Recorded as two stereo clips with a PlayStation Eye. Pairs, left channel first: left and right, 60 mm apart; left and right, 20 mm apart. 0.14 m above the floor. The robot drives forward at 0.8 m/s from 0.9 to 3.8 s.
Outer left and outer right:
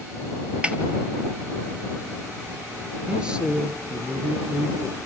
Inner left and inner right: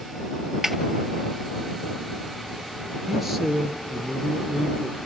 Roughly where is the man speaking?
Centre.